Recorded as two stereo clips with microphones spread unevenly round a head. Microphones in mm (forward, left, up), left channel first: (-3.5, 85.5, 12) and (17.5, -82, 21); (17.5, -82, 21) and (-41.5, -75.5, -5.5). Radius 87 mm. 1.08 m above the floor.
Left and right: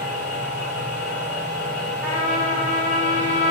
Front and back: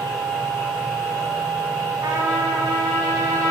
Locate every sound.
0.0 s a machine running: 5° right, 1.7 m
2.0 s a trumpet: 175° left, 0.6 m